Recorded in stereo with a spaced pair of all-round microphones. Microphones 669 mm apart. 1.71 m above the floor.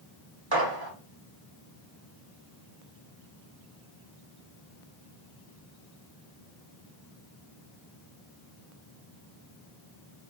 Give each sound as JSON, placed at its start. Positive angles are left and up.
{"t": 0.5, "sound": "a gunshot", "side_deg": -35, "distance_m": 0.7}